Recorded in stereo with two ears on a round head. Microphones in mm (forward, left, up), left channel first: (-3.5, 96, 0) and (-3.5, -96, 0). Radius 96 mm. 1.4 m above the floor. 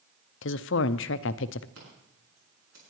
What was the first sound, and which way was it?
A woman speaking, 65° left (ahead or behind).